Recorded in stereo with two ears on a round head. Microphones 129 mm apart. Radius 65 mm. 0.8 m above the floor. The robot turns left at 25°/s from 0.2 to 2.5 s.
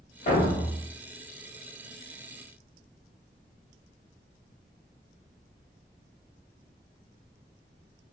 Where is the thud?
55° left (ahead or behind), 1.2 m; by 0.8 s 65° left (ahead or behind), 1.2 m.